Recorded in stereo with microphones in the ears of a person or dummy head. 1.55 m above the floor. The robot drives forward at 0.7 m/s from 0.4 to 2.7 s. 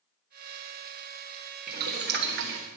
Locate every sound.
1.7 s boiling: 45° right (ahead or behind), 1.4 m; by 2.6 s 55° right (ahead or behind), 1.2 m